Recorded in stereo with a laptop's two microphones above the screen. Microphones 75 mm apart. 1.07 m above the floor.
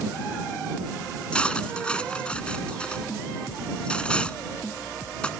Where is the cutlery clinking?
15° left (ahead or behind).